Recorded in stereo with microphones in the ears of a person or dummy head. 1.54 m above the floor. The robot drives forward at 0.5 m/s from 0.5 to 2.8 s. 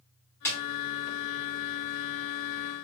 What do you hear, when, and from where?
0.5 s a snare drum: 10° left (ahead or behind), 1.3 m